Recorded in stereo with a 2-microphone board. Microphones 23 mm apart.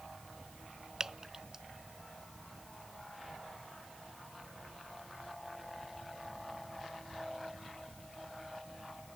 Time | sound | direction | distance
1.0 | dripping | 25° right (ahead or behind) | ?